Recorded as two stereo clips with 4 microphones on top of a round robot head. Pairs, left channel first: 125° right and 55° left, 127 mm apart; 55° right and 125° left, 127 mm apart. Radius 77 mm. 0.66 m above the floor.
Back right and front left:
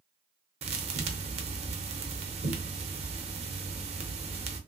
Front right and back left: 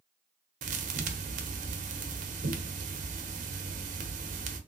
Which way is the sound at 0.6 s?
100° left.